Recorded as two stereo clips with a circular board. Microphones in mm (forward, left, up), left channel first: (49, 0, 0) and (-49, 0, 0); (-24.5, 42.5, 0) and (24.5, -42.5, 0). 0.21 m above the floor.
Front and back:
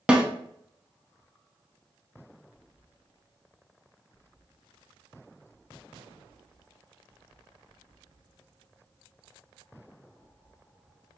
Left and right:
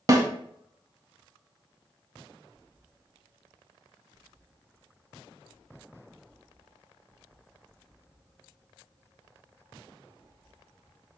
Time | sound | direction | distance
0.1 | a snare drum | 105° right | 0.6 m